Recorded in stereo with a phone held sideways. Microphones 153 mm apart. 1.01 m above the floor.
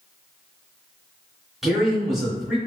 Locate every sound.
1.6 s a man speaking: 5° right (ahead or behind), 1.9 m